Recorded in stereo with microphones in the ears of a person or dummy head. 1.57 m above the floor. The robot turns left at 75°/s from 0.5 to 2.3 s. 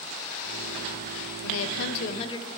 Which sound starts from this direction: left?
A woman speaking, at 1.4 s.